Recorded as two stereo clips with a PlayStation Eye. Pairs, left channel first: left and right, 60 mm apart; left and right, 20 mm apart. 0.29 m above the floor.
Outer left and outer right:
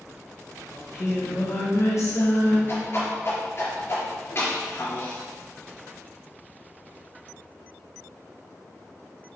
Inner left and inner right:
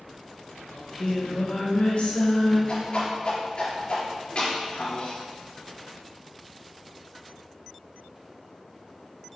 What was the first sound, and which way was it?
Singing, 60° left (ahead or behind).